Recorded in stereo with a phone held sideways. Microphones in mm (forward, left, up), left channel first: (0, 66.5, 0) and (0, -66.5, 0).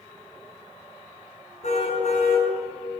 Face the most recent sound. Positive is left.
turn(degrees=60)  # may be behind; listen again after turning